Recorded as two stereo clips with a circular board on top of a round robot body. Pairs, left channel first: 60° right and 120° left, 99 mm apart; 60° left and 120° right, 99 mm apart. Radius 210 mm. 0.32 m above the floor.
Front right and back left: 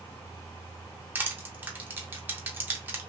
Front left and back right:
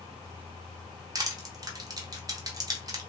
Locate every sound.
1.1 s crushing: 170° right, 0.9 m